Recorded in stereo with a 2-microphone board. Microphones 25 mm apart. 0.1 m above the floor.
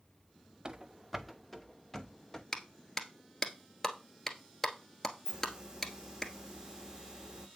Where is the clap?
20° left (ahead or behind), 1.2 m.